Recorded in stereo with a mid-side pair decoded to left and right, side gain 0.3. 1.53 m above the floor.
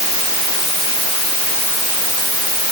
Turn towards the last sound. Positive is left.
No sound to turn to.